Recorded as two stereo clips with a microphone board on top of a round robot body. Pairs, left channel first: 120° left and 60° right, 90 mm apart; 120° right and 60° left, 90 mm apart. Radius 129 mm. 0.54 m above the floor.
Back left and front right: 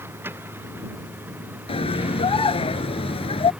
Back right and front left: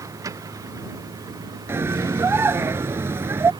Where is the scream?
125° left.